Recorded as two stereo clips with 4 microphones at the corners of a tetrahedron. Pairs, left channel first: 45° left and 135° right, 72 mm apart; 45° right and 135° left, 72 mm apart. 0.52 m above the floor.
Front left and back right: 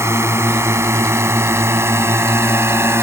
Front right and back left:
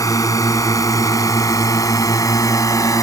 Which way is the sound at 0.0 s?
85° right.